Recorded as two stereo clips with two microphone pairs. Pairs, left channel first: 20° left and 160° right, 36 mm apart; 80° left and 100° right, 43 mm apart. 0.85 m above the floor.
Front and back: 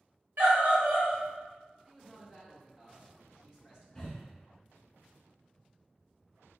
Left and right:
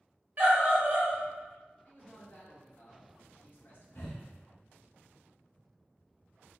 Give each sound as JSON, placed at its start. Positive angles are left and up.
{"t": 0.4, "sound": "a scream", "azimuth_deg": -145, "distance_m": 1.8}
{"t": 1.9, "sound": "a man speaking", "azimuth_deg": 125, "distance_m": 1.8}
{"t": 4.0, "sound": "breathing", "azimuth_deg": 90, "distance_m": 1.6}